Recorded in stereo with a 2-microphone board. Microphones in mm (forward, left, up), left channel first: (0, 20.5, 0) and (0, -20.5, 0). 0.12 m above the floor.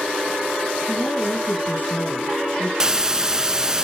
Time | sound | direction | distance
0.9 | a woman speaking | 55° left (ahead or behind) | 3.5 m
2.8 | a hiss | 15° right (ahead or behind) | 0.6 m